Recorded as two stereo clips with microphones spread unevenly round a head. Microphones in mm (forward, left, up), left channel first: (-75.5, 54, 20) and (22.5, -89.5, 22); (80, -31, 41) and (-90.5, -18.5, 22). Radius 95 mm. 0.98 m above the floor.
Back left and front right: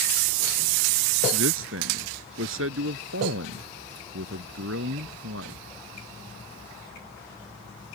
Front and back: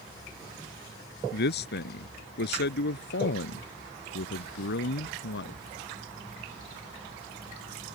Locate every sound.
1.3 s a man speaking: 30° right